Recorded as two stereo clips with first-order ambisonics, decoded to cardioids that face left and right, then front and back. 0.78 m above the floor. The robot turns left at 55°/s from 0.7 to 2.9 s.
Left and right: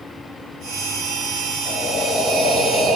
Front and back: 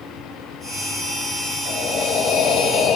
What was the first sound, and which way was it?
Breathing, 30° left.